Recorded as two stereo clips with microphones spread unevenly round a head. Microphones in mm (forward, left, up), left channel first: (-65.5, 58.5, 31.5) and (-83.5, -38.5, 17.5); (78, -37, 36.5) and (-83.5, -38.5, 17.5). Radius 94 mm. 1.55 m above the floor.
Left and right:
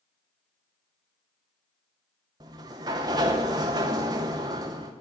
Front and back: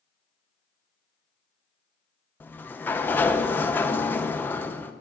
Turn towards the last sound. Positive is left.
turn(degrees=-55)